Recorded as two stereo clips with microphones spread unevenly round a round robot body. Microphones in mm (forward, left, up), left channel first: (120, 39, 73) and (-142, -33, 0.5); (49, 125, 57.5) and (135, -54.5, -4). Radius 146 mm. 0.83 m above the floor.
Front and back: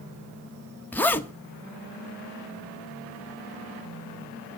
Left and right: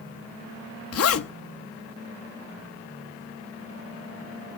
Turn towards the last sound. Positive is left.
turn(degrees=105)